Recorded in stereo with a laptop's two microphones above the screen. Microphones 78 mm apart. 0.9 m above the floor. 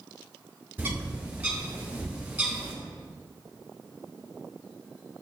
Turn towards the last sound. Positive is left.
turn(degrees=-20)  # may be behind; listen again after turning